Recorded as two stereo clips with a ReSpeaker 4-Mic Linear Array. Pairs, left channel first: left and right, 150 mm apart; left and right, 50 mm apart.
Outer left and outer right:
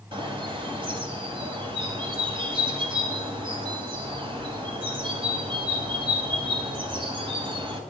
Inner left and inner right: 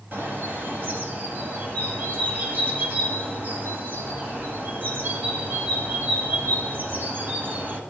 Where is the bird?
35° right (ahead or behind), 1.8 m.